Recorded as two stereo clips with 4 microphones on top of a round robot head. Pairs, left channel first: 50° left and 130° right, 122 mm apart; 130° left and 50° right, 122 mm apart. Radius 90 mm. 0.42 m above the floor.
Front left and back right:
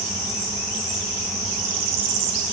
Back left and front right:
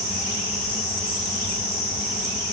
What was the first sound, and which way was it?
Only background noise.